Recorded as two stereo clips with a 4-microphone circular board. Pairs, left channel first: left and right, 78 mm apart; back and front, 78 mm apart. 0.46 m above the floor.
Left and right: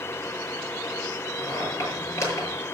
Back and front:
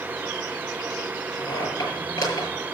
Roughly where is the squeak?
Behind left.